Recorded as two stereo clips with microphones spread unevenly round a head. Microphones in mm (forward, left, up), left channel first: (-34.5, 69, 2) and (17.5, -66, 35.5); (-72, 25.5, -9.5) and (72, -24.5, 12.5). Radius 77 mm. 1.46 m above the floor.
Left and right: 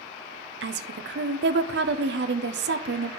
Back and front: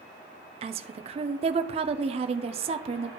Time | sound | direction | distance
0.6 | a woman speaking | 75° right | 0.6 m